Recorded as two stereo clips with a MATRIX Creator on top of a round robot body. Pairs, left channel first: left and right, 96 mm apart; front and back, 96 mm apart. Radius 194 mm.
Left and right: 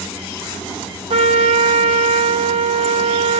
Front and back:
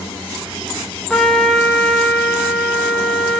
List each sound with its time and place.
1.1 s a trumpet: 85° right, 1.0 m